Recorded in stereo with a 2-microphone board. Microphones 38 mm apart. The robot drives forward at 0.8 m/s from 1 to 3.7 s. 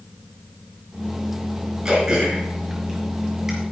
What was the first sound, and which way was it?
Throat clearing, 15° right (ahead or behind).